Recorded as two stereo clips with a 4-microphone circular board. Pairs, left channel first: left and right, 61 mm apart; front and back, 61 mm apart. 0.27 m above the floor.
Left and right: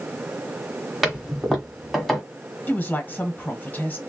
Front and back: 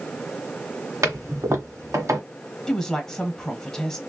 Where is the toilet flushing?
175° left, 1.4 m.